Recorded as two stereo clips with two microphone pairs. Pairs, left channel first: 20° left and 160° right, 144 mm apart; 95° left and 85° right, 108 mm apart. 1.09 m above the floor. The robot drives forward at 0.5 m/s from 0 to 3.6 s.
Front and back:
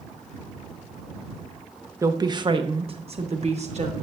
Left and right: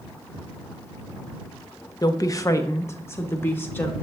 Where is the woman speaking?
135° left, 0.7 m; by 3.9 s 160° left, 1.3 m.